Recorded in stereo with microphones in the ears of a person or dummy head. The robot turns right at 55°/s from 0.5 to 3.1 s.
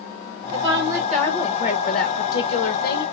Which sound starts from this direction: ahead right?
A woman speaking, at 0.5 s.